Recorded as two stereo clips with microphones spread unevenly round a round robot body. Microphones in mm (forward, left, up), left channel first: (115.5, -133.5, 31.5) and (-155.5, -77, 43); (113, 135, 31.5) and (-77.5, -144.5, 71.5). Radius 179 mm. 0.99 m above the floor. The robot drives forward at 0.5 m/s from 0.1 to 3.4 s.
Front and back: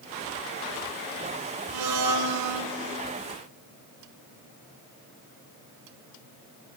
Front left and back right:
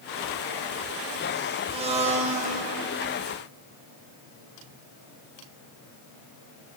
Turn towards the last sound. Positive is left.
turn(degrees=165)